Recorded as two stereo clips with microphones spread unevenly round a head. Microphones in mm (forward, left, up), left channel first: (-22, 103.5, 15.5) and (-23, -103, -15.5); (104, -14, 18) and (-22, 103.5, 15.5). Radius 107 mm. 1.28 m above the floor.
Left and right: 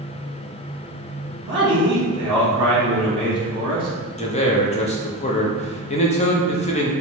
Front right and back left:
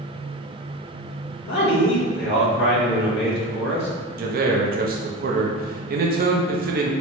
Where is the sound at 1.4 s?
20° right, 1.9 m.